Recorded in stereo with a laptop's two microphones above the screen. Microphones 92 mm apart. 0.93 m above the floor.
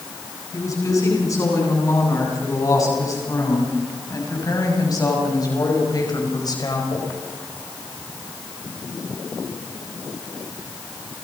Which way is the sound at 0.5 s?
40° left (ahead or behind).